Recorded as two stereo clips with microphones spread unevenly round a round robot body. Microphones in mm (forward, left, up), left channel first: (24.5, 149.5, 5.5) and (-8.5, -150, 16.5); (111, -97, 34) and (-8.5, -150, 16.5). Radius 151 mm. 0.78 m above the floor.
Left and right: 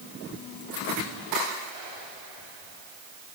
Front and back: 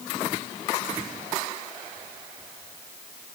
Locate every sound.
Only background noise.